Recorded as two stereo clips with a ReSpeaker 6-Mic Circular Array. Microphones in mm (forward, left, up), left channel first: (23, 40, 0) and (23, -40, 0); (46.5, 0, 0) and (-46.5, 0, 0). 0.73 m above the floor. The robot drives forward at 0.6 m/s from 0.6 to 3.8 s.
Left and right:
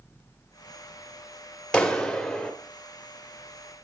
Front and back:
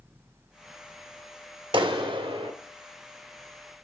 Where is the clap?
170° left, 1.3 m.